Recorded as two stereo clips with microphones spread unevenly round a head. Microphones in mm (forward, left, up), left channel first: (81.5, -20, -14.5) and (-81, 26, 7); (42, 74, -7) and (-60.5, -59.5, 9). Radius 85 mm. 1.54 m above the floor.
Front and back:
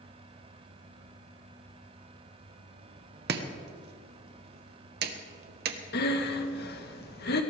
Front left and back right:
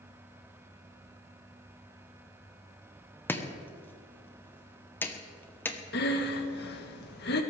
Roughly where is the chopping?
Behind left.